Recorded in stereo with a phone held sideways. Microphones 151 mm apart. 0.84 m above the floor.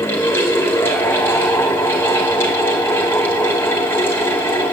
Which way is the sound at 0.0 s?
15° left (ahead or behind).